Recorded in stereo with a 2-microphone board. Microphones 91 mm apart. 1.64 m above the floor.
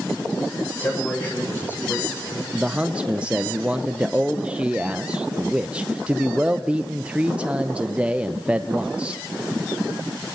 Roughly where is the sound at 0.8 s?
Left.